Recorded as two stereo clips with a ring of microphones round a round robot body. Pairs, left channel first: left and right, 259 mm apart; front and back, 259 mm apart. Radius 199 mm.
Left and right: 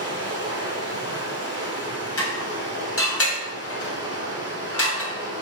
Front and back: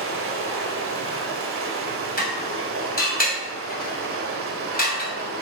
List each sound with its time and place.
0.0 s running water: 140° left, 2 m
2.2 s dishes clattering: 55° left, 2.5 m